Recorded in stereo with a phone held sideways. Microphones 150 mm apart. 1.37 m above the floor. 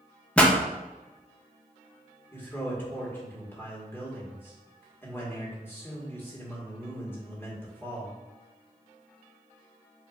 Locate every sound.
0.4 s a pop: 10° left (ahead or behind), 0.6 m
2.3 s a man speaking: 15° left (ahead or behind), 1.7 m